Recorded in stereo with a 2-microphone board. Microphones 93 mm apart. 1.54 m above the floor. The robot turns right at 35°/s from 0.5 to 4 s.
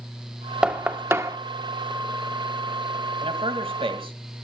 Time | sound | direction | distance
0.6 | knocking | 10° right (ahead or behind) | 1.2 m
3.2 | a man speaking | 85° right | 2 m